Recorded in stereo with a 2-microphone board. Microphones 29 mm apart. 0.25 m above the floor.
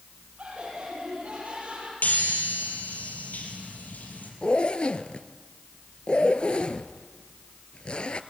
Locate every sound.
0.4 s laughter: 50° right (ahead or behind), 8 m
2.0 s a chime: 80° left, 4 m
4.4 s a zipper: 40° left (ahead or behind), 0.7 m